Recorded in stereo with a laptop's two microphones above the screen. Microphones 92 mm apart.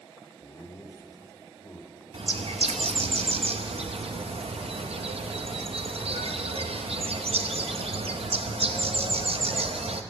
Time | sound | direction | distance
0.4 | laughter | 35° left (ahead or behind) | 1.6 m
2.1 | a bird | 80° right | 0.6 m